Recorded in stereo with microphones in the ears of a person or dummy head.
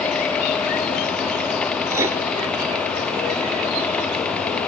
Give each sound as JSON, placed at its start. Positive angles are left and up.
{"t": 1.9, "sound": "writing", "side_deg": -10, "distance_m": 0.5}